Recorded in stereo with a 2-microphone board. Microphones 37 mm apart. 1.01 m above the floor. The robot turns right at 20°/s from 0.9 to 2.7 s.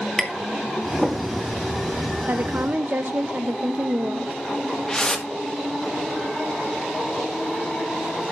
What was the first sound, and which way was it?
Tapping, 15° left (ahead or behind).